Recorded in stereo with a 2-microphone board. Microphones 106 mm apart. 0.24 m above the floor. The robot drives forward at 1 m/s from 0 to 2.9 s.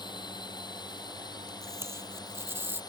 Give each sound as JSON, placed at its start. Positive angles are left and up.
{"t": 0.0, "sound": "a drone", "side_deg": 45}
{"t": 1.6, "sound": "tape being pulled", "side_deg": -25}